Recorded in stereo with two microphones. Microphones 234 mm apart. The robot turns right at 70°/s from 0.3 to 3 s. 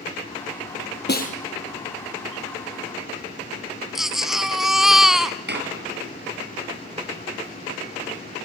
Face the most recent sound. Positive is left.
turn(degrees=-45)  # may be behind; listen again after turning